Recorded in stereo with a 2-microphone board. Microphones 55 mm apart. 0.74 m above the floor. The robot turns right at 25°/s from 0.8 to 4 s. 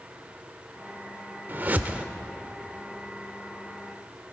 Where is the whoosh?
35° right (ahead or behind), 0.7 m; by 2.0 s 25° right (ahead or behind), 0.7 m.